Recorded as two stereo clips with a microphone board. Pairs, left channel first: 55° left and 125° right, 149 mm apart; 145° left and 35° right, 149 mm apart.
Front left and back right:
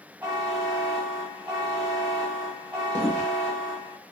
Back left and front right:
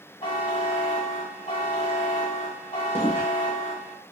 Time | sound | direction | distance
0.2 | a buzzer | 155° left | 1.5 m
3.0 | footsteps | 35° left | 1.0 m